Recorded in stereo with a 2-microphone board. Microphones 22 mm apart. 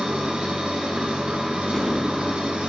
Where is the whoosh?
5° left (ahead or behind), 2.5 m.